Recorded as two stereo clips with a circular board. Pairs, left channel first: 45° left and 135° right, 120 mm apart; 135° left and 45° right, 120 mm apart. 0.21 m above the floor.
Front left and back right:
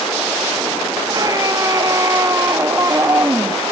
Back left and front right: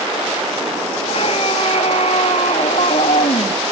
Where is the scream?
170° left; by 3.6 s 155° left.